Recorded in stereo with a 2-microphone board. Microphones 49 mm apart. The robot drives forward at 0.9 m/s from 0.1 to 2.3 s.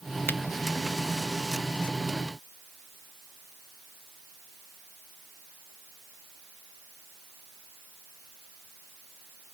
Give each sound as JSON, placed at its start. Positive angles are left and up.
{"t": 0.3, "sound": "a finger snap", "side_deg": 50}